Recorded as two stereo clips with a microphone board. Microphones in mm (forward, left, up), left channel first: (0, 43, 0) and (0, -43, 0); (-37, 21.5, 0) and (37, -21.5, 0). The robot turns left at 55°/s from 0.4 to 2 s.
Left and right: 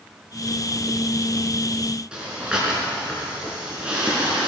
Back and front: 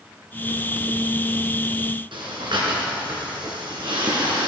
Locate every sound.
2.1 s breathing: 10° right, 3.5 m